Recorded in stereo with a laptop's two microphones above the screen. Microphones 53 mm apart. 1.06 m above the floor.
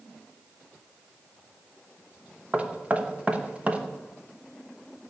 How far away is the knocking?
About 1.0 m.